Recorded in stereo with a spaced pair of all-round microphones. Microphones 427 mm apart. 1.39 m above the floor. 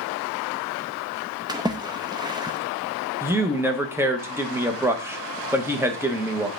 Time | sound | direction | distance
1.5 | a splash | 10° right (ahead or behind) | 0.7 m
3.2 | a man speaking | 5° right (ahead or behind) | 1.0 m